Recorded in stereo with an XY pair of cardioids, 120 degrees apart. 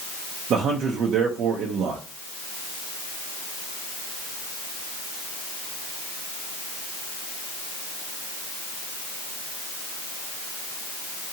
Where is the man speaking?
60° right, 0.6 m.